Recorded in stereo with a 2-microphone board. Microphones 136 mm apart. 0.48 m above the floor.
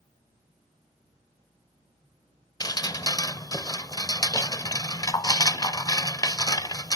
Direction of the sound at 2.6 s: 30° left (ahead or behind).